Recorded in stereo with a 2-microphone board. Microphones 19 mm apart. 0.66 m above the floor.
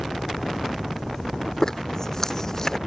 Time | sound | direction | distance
1.6 | a zipper | 30° left (ahead or behind) | ?